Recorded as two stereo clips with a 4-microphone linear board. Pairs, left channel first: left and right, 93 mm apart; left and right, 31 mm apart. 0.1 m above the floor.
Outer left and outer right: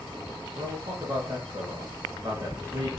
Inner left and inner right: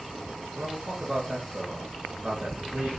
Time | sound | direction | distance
0.6 | a man speaking | 25° right (ahead or behind) | 1.5 m